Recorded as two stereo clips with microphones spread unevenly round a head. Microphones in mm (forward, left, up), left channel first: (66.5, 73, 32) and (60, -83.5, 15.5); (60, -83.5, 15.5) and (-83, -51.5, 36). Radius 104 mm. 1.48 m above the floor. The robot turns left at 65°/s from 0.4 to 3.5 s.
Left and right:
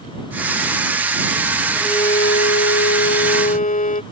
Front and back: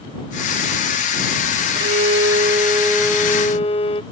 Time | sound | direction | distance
1.8 | a violin | 165° left | ?